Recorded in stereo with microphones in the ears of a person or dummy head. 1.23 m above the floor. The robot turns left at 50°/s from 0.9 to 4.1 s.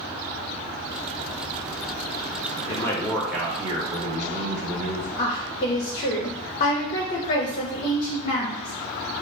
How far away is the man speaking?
About 0.9 m.